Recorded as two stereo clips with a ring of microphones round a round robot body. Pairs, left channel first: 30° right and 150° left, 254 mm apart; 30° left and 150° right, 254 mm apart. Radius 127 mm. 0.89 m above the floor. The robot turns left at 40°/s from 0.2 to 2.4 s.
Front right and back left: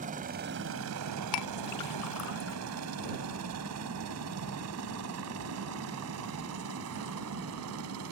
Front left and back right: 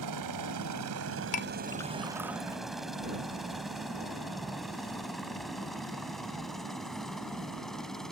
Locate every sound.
0.0 s a helicopter: 150° right; by 8.1 s 120° left
1.3 s a clink: 30° right; by 2.6 s 75° right